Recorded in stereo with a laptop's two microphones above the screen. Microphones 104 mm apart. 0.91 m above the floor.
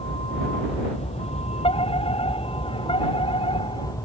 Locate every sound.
0.0 s a vehicle: 70° left (ahead or behind); by 4.0 s 30° left (ahead or behind)
1.6 s a fire alarm: 65° left (ahead or behind)